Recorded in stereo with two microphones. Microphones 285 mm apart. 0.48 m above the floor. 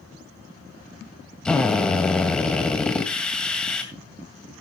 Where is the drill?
5° left (ahead or behind), 2 m.